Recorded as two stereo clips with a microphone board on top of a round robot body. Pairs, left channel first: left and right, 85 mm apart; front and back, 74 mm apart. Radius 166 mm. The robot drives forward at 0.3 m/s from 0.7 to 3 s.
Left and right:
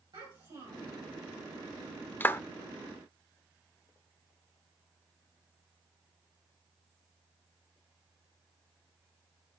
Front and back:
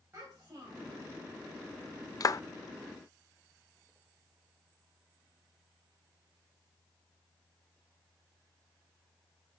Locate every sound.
0.1 s a child speaking: 120° right, 3 m; by 1.0 s 125° right, 3 m
2.2 s a clap: 25° left, 0.6 m; by 2.4 s 30° left, 0.5 m